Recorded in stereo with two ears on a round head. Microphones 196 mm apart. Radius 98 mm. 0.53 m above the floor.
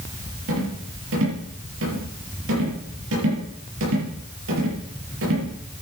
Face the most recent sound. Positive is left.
turn(degrees=-65)  # may be behind; listen again after turning